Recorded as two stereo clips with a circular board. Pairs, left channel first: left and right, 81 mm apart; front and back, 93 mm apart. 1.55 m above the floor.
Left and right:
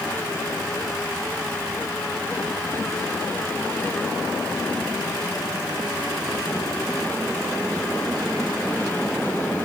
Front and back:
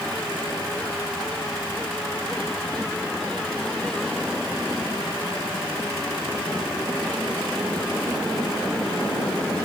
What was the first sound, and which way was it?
Only background noise.